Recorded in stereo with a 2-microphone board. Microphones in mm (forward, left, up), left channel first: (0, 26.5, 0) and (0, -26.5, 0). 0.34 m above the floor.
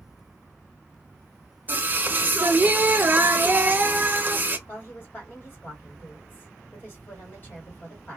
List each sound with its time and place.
1.7 s singing: 35° right (ahead or behind), 0.6 m
4.7 s a woman speaking: 35° left (ahead or behind), 2.0 m